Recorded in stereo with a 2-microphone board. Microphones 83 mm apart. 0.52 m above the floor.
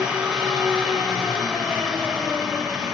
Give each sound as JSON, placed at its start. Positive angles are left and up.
{"t": 0.0, "sound": "an engine running", "side_deg": -10, "distance_m": 2.0}